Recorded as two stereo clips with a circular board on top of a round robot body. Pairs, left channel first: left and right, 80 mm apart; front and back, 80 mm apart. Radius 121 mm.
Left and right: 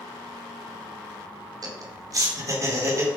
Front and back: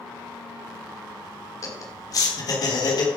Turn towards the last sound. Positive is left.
turn(degrees=-35)